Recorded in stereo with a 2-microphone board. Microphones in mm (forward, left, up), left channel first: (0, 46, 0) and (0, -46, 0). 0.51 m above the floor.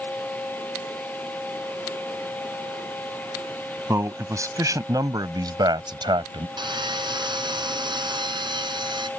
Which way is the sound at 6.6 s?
60° right (ahead or behind).